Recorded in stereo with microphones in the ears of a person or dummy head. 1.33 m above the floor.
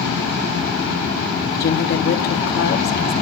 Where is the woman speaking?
50° left (ahead or behind), 0.8 m.